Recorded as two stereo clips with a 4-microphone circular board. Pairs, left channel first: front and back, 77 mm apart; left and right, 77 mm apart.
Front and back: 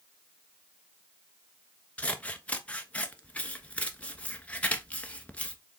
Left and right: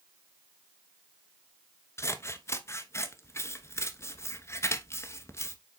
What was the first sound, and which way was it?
Scissors, 65° left.